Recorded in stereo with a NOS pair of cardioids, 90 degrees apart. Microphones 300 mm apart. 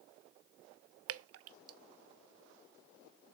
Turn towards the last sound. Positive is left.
turn(degrees=-55)